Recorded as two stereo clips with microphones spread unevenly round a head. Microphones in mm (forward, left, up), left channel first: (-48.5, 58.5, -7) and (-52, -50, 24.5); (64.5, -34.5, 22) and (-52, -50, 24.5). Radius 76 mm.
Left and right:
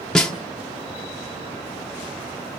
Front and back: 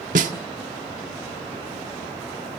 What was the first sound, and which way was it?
A snare drum, 175° left.